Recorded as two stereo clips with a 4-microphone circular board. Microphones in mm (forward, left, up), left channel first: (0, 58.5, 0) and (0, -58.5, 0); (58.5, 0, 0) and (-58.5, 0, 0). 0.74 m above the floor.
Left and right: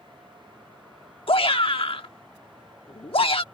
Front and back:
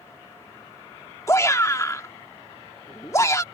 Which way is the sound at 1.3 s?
60° left.